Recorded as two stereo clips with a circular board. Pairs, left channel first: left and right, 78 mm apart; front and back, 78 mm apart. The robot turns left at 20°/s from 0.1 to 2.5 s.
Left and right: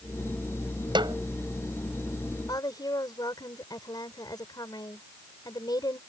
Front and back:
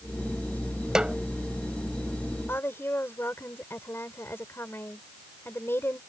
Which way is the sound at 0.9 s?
100° right.